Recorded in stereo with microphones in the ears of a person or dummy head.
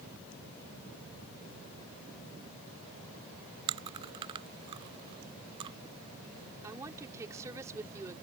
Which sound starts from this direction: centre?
A woman speaking, at 6.6 s.